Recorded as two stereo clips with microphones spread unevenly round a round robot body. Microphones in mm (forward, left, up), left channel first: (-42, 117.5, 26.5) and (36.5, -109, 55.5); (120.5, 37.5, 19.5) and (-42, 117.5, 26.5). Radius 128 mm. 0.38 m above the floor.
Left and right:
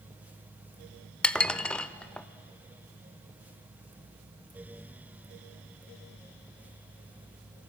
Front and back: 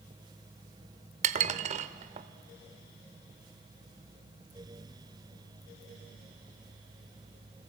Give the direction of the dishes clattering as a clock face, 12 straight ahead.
6 o'clock.